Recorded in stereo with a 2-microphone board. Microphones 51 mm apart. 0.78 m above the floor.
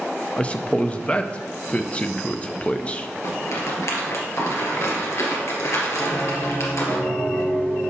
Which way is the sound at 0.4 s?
25° left (ahead or behind).